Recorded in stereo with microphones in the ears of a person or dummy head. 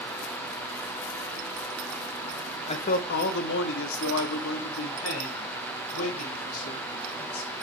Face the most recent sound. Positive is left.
turn(degrees=85)